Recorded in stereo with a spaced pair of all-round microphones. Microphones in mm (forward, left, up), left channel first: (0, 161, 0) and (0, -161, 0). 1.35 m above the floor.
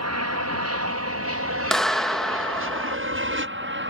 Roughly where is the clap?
Centre.